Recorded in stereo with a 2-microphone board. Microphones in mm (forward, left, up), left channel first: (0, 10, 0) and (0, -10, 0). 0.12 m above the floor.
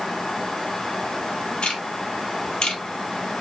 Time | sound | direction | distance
1.6 | ticking | 50° left (ahead or behind) | 2.5 m